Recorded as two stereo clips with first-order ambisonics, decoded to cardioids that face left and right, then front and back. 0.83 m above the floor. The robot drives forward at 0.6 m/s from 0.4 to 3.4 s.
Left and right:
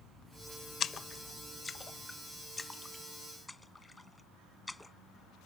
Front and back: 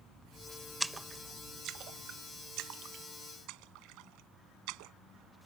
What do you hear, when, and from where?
0.8 s a splash: 95° left; by 4.9 s 170° left